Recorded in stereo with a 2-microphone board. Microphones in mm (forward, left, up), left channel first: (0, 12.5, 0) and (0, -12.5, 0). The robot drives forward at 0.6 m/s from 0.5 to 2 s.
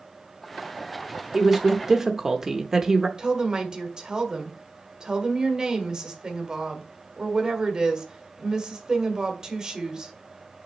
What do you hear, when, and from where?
1.3 s a woman speaking: 20° right (ahead or behind), 0.9 m
3.2 s a woman speaking: 30° right (ahead or behind), 1.4 m